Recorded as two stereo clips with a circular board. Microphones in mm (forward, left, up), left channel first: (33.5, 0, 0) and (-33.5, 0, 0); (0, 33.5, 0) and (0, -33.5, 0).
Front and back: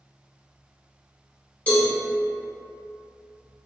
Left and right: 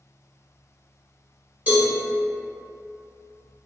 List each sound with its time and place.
1.7 s a cowbell: 50° right, 1.4 m